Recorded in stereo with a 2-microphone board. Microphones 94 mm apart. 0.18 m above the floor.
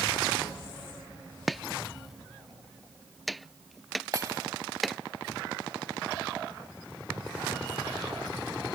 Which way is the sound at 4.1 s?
35° right (ahead or behind).